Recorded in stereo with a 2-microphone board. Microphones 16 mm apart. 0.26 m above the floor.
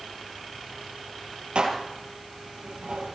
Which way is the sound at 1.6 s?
75° right (ahead or behind).